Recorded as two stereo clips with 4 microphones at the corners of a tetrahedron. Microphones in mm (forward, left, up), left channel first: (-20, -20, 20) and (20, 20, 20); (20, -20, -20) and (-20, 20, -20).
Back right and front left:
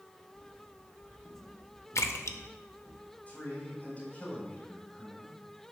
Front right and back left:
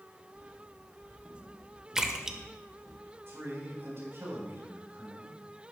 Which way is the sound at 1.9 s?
145° right.